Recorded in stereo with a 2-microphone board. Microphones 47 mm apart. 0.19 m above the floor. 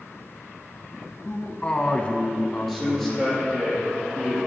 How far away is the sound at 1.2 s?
About 1.2 m.